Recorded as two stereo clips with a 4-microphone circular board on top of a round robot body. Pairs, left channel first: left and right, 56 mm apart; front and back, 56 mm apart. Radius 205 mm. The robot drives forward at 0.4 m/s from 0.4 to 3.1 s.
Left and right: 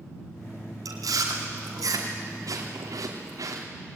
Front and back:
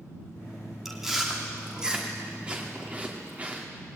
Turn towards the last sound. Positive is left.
turn(degrees=-115)